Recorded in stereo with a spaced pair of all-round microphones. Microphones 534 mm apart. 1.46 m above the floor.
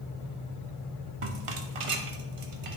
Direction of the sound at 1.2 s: 70° right (ahead or behind).